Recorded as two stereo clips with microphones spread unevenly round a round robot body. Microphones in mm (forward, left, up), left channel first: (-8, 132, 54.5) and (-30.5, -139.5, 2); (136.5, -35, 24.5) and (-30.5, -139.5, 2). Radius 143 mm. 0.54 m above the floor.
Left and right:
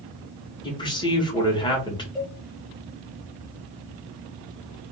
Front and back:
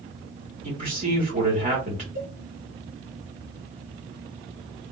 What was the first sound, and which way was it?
A man speaking, 160° left.